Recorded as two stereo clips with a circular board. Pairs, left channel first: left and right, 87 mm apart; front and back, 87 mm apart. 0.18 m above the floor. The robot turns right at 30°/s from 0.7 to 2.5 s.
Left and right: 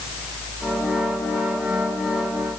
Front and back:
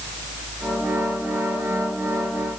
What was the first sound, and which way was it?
Only background noise.